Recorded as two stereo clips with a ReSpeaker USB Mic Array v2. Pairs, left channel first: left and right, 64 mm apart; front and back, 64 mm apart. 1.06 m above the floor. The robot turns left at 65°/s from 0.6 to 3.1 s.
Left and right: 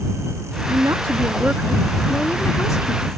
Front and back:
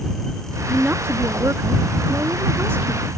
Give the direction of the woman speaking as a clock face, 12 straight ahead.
3 o'clock.